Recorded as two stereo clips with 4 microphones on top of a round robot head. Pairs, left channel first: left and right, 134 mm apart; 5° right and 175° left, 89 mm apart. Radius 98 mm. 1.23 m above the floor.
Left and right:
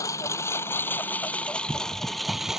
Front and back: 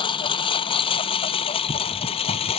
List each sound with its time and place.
0.0 s a lawn mower: 20° left; by 2.6 s 5° right